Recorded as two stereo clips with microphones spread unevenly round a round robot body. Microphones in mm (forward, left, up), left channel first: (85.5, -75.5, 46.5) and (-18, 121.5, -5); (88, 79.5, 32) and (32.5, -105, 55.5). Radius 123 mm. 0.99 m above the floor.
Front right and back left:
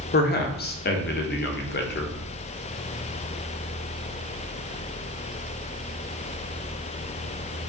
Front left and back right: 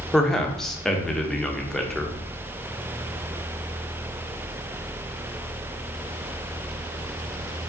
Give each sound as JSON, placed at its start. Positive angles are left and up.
{"t": 0.1, "sound": "a man speaking", "azimuth_deg": -10, "distance_m": 0.9}